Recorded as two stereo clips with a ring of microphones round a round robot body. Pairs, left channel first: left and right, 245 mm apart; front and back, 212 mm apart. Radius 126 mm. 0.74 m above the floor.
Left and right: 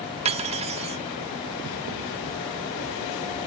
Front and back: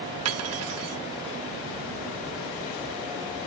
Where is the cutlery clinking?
155° right.